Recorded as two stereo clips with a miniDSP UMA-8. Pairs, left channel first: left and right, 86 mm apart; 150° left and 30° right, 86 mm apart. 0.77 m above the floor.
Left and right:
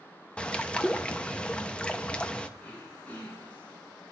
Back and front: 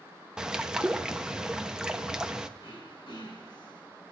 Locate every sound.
0.4 s a bird: 35° left, 0.7 m
2.6 s throat clearing: 160° left, 4.5 m